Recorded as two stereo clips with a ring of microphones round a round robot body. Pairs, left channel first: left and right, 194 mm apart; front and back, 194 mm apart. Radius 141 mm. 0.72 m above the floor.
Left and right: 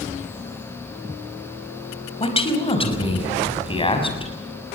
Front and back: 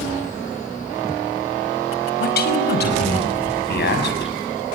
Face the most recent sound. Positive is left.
turn(degrees=30)